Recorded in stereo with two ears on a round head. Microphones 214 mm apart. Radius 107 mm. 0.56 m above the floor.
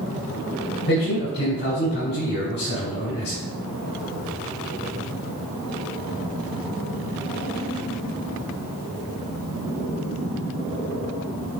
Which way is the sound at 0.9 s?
45° left (ahead or behind).